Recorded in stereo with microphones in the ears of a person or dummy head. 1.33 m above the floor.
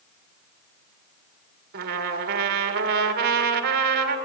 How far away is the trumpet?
About 1.8 m.